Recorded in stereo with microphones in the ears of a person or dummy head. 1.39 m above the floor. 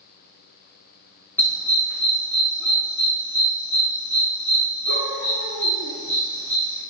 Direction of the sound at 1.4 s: 15° left (ahead or behind).